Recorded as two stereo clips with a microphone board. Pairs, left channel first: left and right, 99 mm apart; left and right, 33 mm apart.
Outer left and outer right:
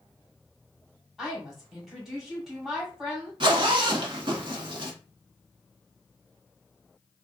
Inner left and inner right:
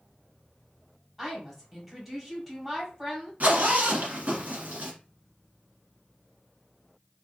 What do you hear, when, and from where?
1.2 s a woman speaking: 5° right (ahead or behind), 1.6 m
3.4 s a zipper: 55° right (ahead or behind), 1.0 m